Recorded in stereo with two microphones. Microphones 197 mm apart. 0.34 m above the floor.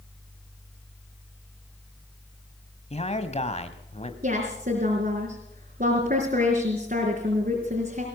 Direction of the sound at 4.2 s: 50° right (ahead or behind).